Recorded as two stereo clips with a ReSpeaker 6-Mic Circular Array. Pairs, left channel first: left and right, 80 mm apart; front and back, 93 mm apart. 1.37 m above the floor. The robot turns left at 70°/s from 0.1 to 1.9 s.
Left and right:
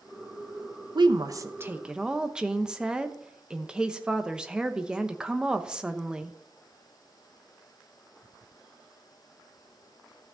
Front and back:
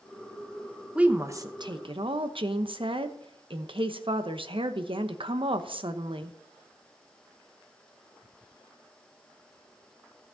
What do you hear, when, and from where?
0.9 s a woman speaking: 100° right, 0.9 m; by 6.3 s 165° right, 0.9 m